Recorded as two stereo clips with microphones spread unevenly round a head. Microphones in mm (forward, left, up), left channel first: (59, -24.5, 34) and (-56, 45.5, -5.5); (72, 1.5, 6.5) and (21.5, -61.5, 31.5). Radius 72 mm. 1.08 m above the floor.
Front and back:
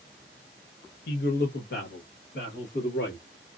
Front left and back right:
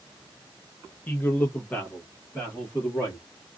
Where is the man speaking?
10° right, 0.6 m; by 3.2 s 15° right, 2 m.